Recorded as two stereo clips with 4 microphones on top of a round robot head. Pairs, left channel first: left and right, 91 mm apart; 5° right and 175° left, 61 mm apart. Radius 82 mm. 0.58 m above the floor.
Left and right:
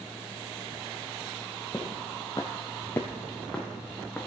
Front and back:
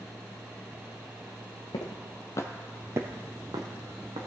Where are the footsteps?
10° left, 1.7 m; by 4.3 s 175° left, 2.5 m.